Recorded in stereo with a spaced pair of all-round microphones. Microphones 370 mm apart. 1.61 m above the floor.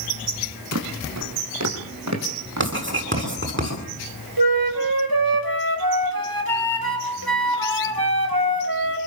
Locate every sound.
0.7 s footsteps: 45° right (ahead or behind), 4.5 m; by 3.3 s 50° right (ahead or behind), 6 m
2.6 s writing: 30° right (ahead or behind), 9.5 m
4.4 s a flute: 70° right (ahead or behind), 5.5 m